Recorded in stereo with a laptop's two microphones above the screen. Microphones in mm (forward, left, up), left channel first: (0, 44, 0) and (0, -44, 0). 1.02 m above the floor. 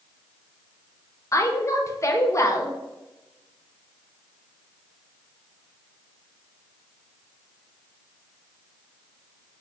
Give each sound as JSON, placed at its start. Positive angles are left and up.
{"t": 1.3, "sound": "a woman speaking", "side_deg": 35, "distance_m": 0.6}